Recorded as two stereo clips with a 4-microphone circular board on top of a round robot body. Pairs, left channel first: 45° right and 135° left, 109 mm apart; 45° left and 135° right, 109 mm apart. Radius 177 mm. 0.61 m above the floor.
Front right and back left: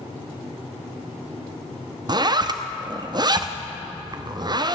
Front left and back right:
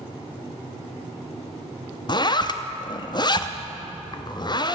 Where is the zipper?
90° left, 1.0 m.